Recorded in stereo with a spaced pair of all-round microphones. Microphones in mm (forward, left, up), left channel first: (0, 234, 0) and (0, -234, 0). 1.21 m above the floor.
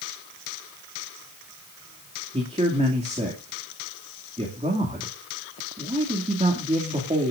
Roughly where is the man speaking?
Centre.